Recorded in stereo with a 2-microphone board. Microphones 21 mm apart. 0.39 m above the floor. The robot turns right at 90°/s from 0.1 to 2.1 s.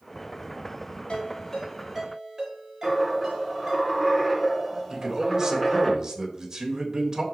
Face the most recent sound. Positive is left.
turn(degrees=-35)  # may be behind; listen again after turning